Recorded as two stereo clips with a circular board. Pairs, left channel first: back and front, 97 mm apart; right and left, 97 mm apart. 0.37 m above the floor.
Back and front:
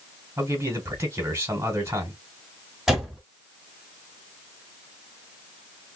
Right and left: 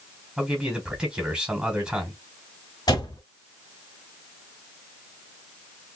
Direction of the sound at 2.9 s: 85° right.